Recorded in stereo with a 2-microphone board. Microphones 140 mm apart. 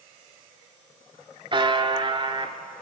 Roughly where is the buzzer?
Right.